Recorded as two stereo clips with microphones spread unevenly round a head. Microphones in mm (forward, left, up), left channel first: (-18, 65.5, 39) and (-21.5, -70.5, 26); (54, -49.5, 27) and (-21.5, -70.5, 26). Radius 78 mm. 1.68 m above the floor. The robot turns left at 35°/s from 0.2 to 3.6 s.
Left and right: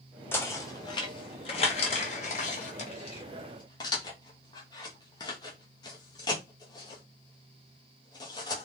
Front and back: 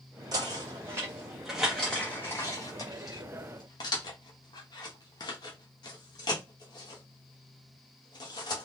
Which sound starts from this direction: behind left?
Knocking, at 0.3 s.